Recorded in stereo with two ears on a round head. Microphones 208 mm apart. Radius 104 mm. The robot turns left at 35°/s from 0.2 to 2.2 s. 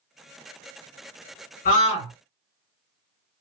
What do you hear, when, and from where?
1.6 s a scream: 35° left (ahead or behind), 1.9 m; by 2.1 s 20° left (ahead or behind), 1.9 m